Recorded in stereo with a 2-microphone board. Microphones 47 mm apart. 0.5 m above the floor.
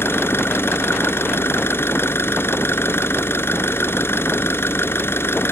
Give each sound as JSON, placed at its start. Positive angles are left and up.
{"t": 0.0, "sound": "an engine running", "side_deg": 60}